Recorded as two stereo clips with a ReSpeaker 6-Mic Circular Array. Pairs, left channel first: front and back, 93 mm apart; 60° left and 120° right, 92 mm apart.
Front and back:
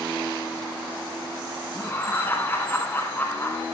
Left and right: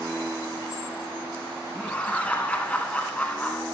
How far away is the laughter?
About 1.2 m.